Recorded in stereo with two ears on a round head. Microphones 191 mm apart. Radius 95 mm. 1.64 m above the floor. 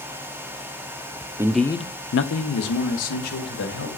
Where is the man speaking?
15° right (ahead or behind), 0.7 m; by 3.9 s 80° left, 2.5 m.